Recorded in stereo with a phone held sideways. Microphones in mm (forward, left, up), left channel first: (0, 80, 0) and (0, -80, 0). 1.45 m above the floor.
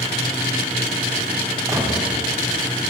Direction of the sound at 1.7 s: 20° right (ahead or behind).